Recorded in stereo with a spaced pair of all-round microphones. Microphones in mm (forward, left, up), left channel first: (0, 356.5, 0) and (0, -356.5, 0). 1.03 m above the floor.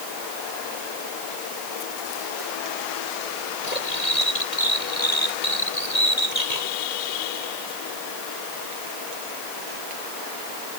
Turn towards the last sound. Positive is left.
turn(degrees=70)  # may be behind; listen again after turning